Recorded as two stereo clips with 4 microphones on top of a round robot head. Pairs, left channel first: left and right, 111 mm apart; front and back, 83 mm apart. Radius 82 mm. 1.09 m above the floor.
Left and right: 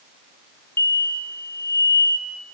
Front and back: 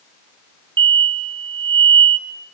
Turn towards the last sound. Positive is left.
turn(degrees=160)